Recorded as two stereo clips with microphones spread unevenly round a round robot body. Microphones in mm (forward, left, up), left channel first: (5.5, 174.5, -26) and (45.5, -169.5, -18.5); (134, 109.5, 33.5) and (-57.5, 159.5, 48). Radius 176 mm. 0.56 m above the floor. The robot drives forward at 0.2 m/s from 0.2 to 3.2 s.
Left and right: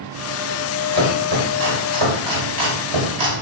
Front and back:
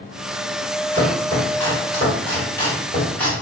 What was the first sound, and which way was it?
Chopping, 65° right.